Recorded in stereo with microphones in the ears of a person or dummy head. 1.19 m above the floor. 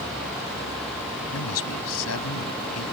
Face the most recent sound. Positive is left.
turn(degrees=80)